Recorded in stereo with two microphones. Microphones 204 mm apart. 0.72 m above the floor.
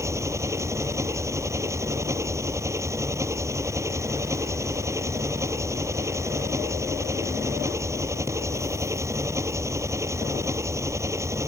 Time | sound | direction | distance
0.0 | an engine running | 15° right (ahead or behind) | ?